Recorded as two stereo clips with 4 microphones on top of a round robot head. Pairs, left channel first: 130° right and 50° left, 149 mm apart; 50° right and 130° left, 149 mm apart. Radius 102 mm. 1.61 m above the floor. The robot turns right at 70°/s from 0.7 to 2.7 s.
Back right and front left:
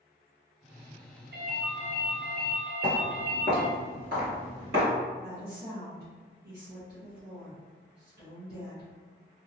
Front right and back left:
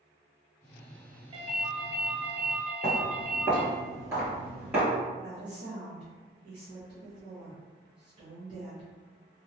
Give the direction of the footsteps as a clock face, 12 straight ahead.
7 o'clock.